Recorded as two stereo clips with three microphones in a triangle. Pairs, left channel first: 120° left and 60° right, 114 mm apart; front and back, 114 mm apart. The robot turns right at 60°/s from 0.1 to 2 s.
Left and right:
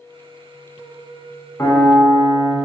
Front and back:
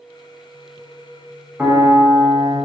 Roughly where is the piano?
Behind left.